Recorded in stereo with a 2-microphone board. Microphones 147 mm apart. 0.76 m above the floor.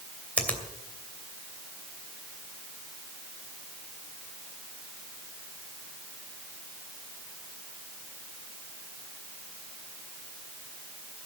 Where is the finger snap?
10° left (ahead or behind), 2.5 m.